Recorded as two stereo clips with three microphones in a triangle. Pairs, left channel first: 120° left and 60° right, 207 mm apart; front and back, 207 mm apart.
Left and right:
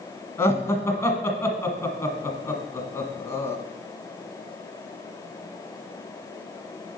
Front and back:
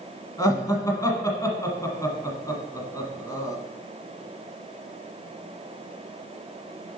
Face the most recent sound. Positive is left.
turn(degrees=55)